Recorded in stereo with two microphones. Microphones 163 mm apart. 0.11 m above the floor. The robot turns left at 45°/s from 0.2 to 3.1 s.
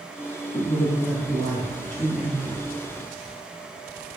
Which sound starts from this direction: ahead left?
A man speaking, at 0.5 s.